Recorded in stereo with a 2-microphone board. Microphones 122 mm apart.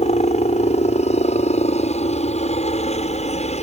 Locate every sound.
0.0 s a helicopter: 60° left (ahead or behind)